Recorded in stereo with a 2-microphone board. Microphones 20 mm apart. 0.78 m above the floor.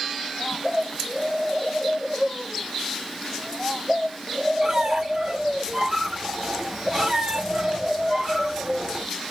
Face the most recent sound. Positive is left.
turn(degrees=-30)  # may be behind; listen again after turning